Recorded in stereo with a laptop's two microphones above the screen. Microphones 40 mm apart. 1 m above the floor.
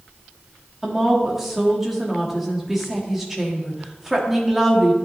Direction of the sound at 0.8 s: 10° right (ahead or behind).